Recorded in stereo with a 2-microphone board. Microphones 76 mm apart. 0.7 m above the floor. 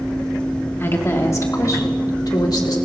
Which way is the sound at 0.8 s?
30° left (ahead or behind).